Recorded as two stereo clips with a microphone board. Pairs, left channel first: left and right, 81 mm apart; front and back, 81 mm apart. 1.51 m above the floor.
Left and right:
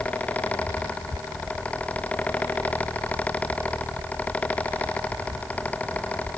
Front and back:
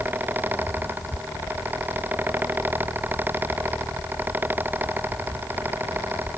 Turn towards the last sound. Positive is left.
No sound to turn to.